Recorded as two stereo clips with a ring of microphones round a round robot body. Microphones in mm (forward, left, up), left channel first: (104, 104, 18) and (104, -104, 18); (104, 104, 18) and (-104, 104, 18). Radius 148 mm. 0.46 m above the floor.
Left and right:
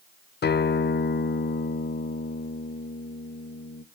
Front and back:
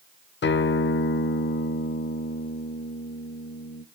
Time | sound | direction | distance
0.4 | a guitar | 45° left | 0.7 m